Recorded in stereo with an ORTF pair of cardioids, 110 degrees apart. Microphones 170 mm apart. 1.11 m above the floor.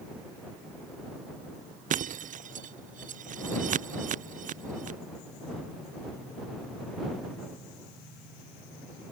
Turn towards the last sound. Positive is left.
turn(degrees=-50)